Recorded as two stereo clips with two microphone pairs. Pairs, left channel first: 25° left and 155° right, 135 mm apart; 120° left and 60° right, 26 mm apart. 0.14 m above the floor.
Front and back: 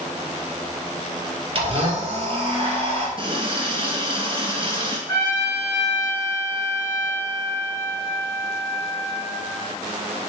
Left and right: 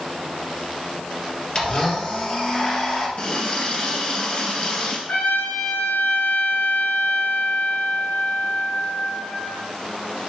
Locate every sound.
1.6 s a blender: 170° left, 2.5 m
3.2 s a running tap: 165° left, 2.0 m
5.1 s a trumpet: 95° left, 4 m